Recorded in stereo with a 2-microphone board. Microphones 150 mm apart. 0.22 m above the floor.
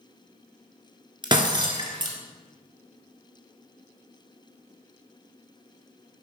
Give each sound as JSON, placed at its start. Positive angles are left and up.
{"t": 1.2, "sound": "breaking glass", "side_deg": -30, "distance_m": 1.5}